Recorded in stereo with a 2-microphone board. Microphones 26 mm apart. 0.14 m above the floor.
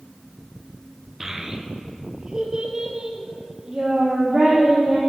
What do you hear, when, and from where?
1.2 s a child speaking: 20° right (ahead or behind), 1.3 m; by 5.0 s 30° right (ahead or behind), 5 m